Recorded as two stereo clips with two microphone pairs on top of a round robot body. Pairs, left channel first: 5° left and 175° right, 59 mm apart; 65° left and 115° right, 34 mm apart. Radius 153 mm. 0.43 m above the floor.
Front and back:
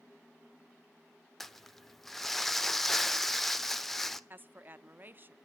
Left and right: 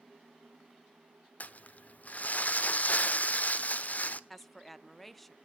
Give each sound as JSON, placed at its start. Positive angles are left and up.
{"t": 1.4, "sound": "crumpling", "azimuth_deg": 85, "distance_m": 1.2}
{"t": 4.3, "sound": "a woman speaking", "azimuth_deg": 140, "distance_m": 1.1}